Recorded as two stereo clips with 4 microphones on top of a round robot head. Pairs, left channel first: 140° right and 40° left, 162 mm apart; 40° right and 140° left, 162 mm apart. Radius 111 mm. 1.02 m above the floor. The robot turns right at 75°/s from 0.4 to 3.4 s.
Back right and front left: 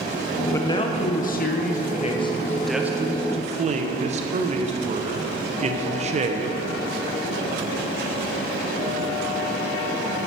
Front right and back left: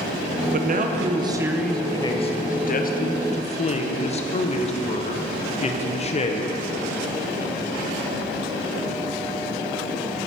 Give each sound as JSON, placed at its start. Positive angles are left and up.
{"t": 0.5, "sound": "a man speaking", "azimuth_deg": 145, "distance_m": 0.6}